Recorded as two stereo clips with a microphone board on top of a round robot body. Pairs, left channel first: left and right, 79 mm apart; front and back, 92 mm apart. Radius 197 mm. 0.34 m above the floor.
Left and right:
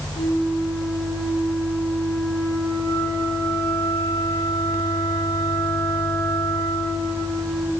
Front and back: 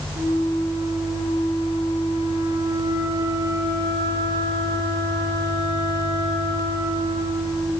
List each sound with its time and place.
0.1 s a flute: 145° left, 8.5 m